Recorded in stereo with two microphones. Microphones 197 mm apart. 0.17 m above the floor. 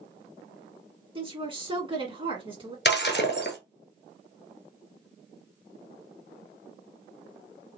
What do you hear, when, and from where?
1.1 s a woman speaking: 25° right (ahead or behind), 1.7 m
2.9 s breaking glass: 60° left (ahead or behind), 1.1 m